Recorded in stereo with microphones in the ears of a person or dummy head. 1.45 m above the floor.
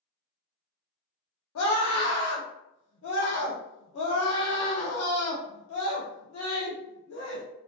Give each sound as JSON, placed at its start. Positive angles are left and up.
{"t": 1.6, "sound": "a scream", "side_deg": 75, "distance_m": 0.6}